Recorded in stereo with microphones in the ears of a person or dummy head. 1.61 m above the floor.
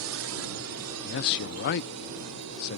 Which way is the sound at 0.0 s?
70° right (ahead or behind).